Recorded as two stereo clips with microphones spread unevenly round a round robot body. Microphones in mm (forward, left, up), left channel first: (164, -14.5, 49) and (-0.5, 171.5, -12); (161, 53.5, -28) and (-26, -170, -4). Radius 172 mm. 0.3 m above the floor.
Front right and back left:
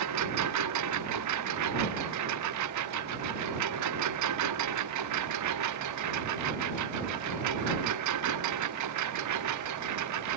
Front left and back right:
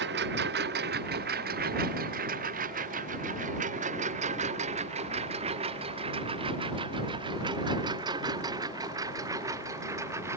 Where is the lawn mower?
170° left; by 10.4 s 145° left.